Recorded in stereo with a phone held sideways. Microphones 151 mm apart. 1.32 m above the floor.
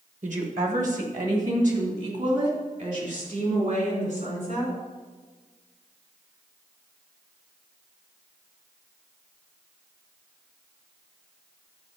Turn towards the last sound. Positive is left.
turn(degrees=-55)  # may be behind; listen again after turning